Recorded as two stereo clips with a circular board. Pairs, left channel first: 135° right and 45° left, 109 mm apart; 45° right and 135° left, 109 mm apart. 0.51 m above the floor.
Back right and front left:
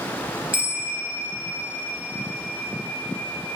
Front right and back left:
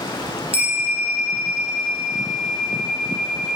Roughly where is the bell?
Behind.